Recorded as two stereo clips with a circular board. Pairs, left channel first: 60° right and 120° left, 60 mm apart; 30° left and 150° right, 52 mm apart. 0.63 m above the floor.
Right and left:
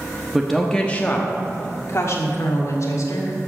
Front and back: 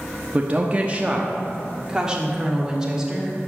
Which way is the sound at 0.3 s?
165° right.